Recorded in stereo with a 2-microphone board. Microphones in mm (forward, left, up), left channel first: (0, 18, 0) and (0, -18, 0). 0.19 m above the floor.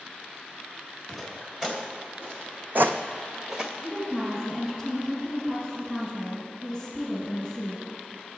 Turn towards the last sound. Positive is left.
turn(degrees=-10)  # may be behind; listen again after turning